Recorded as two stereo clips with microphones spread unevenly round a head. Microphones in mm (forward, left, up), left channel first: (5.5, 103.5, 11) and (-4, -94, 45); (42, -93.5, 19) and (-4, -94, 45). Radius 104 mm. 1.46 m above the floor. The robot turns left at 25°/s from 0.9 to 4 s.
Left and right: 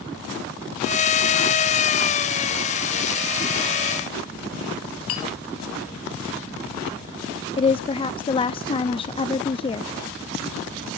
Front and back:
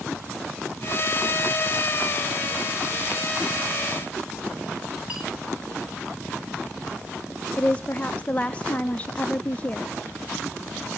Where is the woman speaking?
30° left, 0.6 m.